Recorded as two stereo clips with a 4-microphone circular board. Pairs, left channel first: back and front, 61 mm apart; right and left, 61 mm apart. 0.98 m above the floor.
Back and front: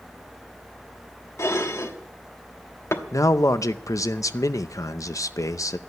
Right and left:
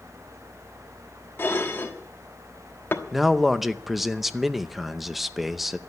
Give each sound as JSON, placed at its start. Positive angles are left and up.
{"t": 1.4, "sound": "dishes clattering", "azimuth_deg": -140, "distance_m": 1.2}
{"t": 3.1, "sound": "a man speaking", "azimuth_deg": 175, "distance_m": 0.7}